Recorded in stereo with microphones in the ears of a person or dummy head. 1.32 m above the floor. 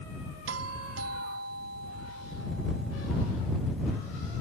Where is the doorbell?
80° right.